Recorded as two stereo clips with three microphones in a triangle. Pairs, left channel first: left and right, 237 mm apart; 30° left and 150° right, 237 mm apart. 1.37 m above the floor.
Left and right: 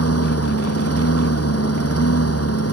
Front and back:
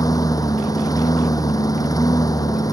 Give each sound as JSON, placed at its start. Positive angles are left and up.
{"t": 0.0, "sound": "a lawn mower", "azimuth_deg": 105}